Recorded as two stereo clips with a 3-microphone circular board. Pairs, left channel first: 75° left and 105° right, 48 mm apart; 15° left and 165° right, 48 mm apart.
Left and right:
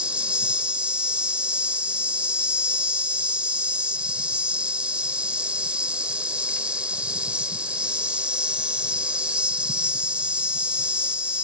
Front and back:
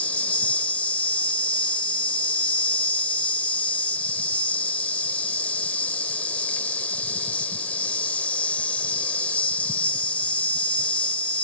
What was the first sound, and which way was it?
An insect, 40° right.